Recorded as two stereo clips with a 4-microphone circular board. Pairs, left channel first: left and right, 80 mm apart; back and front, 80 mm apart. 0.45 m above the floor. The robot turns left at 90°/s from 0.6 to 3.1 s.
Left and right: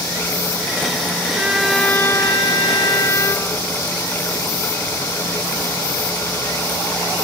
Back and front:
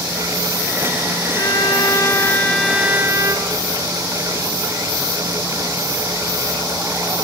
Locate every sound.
1.3 s a violin: 150° right, 1.3 m; by 3.6 s 50° left, 1.3 m